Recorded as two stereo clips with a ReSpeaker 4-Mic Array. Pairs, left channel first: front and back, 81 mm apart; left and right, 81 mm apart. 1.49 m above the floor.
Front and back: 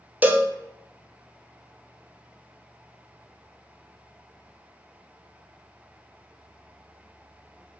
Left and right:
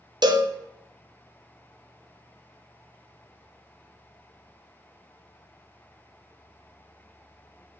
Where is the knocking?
I don't hear knocking.